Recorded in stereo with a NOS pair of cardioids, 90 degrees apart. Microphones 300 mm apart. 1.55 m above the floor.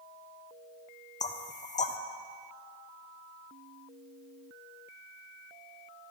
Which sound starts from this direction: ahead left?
Knocking, at 1.2 s.